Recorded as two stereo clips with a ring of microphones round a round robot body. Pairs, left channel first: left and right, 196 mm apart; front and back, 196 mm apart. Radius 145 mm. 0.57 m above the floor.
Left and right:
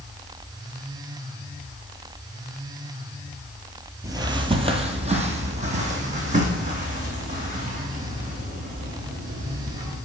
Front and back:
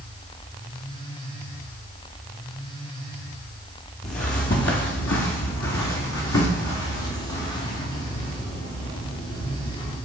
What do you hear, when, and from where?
4.0 s footsteps: 30° right, 0.6 m; by 10.0 s 40° right, 3.5 m